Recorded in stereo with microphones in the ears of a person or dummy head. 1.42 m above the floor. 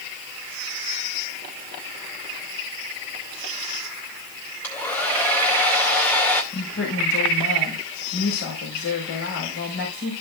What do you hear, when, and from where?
4.6 s a hair dryer: 10° left (ahead or behind), 2 m
6.5 s a woman speaking: 85° left, 4 m